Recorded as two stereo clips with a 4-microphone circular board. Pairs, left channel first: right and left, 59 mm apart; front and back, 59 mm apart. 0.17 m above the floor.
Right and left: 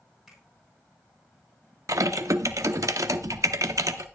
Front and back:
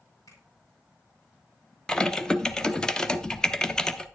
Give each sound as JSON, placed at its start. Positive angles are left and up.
{"t": 0.3, "sound": "a finger snap", "azimuth_deg": 5, "distance_m": 6.5}
{"t": 1.9, "sound": "typing on a keyboard", "azimuth_deg": 75, "distance_m": 0.7}